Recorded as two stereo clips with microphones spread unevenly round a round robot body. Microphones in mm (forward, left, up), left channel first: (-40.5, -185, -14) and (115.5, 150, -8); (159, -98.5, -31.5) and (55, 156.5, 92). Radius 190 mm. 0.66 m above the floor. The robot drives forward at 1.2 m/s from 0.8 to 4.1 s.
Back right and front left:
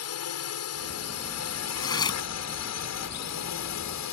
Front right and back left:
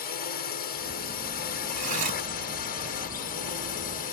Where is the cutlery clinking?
165° left.